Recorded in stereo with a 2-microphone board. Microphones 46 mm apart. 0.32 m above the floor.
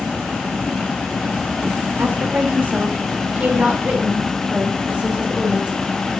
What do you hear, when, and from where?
2.0 s a woman speaking: 40° right (ahead or behind), 6 m; by 5.7 s 20° right (ahead or behind), 5.5 m